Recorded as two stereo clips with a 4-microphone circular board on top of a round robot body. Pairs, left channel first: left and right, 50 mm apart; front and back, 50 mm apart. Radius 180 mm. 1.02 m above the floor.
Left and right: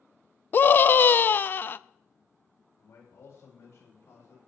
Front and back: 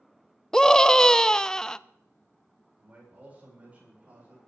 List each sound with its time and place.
0.5 s a scream: 70° left, 0.9 m
2.8 s a man speaking: 115° left, 8.5 m